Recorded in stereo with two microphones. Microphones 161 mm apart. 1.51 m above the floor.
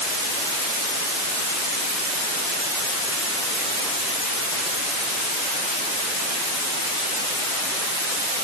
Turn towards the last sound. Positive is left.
No sound to turn to.